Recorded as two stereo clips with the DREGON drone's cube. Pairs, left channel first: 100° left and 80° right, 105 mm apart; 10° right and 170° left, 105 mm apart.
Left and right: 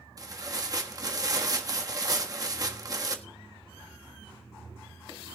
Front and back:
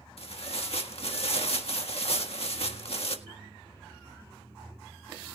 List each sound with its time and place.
0.2 s tearing paper: 25° right, 1.6 m